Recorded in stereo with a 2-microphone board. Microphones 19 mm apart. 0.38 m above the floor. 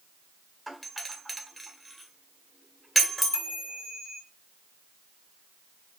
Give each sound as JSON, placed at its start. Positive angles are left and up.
{"t": 0.7, "sound": "a doorbell", "side_deg": 0, "distance_m": 1.7}
{"t": 3.3, "sound": "a chime", "side_deg": -35, "distance_m": 3.0}